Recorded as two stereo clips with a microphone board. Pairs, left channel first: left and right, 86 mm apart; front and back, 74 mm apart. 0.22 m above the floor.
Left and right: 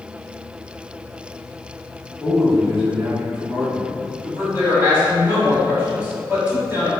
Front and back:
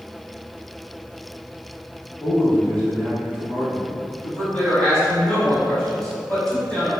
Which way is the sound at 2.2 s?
20° left.